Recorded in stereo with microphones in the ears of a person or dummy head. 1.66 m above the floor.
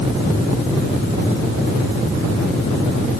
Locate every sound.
Only background noise.